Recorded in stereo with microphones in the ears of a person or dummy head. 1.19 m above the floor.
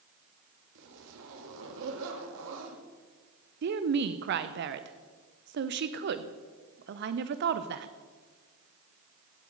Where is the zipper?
70° right (ahead or behind), 1.7 m.